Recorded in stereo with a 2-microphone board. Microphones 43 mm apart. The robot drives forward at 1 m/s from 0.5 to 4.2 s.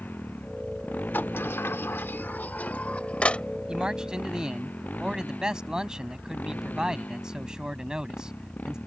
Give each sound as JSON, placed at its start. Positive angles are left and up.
{"t": 0.0, "sound": "a motorcycle", "side_deg": 45}
{"t": 1.1, "sound": "a sliding door", "side_deg": 55}
{"t": 3.7, "sound": "a man speaking", "side_deg": -20}